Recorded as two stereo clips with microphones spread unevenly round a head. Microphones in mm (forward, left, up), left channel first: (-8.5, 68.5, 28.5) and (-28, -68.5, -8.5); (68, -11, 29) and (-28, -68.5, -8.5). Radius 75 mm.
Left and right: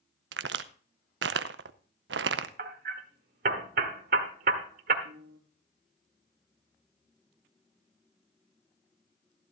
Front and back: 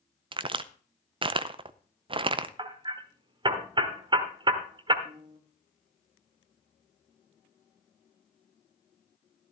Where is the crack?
100° right, 0.6 m.